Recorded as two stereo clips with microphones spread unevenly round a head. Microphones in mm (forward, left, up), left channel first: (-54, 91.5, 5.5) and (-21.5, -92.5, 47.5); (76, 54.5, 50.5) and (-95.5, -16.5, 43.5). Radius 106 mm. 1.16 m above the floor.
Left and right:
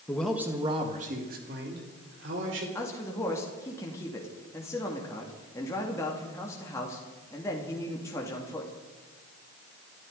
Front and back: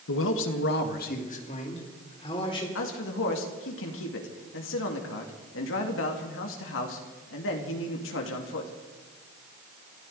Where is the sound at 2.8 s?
25° left, 2 m.